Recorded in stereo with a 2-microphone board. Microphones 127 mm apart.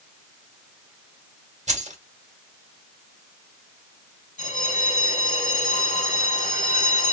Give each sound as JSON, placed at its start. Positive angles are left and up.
{"t": 1.7, "sound": "keys jangling", "side_deg": -70, "distance_m": 1.7}
{"t": 4.4, "sound": "a bell", "side_deg": 80, "distance_m": 1.3}